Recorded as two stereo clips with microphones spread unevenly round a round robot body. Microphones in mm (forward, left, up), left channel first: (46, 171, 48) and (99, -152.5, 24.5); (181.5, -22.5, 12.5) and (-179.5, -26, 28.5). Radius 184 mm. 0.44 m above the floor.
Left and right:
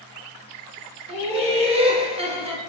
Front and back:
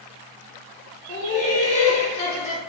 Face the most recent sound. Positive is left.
turn(degrees=-40)